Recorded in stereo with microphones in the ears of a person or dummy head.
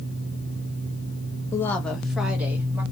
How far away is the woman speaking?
About 0.6 m.